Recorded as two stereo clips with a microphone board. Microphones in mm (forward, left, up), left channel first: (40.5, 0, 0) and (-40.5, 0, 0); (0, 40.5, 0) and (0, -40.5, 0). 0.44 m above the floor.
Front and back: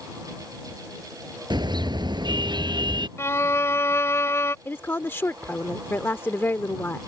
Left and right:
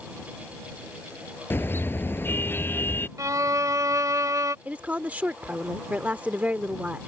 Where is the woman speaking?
35° right.